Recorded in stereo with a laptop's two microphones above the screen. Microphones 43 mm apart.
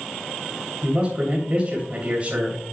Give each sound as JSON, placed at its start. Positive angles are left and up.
{"t": 0.8, "sound": "a man speaking", "side_deg": -30, "distance_m": 2.5}